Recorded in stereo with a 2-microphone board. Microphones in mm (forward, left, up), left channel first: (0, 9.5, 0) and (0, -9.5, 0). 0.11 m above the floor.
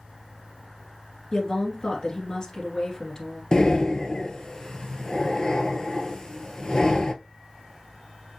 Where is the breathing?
35° left (ahead or behind), 0.6 m.